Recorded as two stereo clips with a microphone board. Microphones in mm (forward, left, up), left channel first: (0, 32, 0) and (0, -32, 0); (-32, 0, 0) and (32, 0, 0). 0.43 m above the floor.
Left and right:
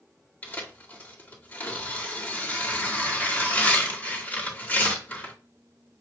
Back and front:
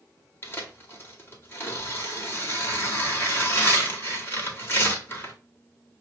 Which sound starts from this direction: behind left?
Tearing paper, at 0.4 s.